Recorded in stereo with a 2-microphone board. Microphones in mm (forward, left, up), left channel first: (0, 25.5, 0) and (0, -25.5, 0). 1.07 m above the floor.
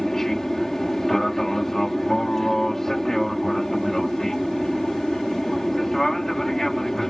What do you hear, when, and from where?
0.0 s an aircraft: 10° left (ahead or behind)